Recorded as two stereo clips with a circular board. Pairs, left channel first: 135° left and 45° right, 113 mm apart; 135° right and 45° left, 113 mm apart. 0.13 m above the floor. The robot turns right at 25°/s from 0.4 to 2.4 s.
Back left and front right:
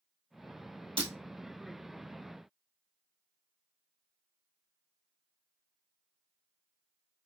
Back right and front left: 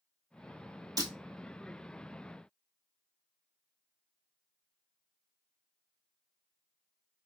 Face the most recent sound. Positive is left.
turn(degrees=30)